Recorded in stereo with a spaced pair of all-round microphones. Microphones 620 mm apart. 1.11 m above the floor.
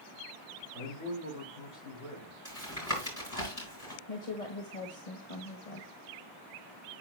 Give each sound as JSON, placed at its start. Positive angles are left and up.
{"t": 0.7, "sound": "a man speaking", "side_deg": 60, "distance_m": 6.0}
{"t": 2.5, "sound": "tapping", "side_deg": 25, "distance_m": 4.5}
{"t": 4.1, "sound": "a woman speaking", "side_deg": 85, "distance_m": 1.4}